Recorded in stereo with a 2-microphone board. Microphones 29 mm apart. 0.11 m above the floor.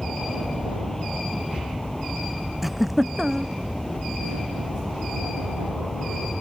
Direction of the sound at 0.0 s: 10° left (ahead or behind).